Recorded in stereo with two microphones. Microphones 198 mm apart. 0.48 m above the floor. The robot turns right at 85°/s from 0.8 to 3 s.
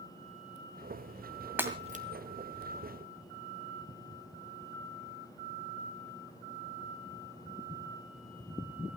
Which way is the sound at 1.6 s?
10° right (ahead or behind).